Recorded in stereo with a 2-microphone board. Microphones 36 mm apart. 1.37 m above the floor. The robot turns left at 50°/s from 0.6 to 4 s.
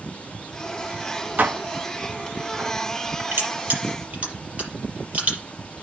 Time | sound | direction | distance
1.4 | dishes clattering | 50° right (ahead or behind) | 1.4 m
3.3 | crushing | 65° right (ahead or behind) | 6 m